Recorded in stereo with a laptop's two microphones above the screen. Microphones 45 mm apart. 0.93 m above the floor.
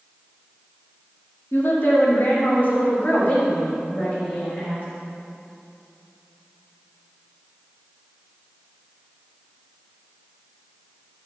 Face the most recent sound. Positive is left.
turn(degrees=40)  # may be behind; listen again after turning